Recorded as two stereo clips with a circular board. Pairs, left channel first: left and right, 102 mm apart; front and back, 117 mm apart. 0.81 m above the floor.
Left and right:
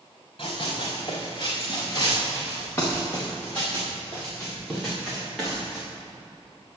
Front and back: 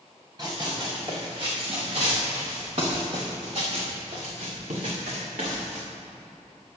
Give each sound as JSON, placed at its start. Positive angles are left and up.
{"t": 0.4, "sound": "running footsteps", "azimuth_deg": 120, "distance_m": 4.0}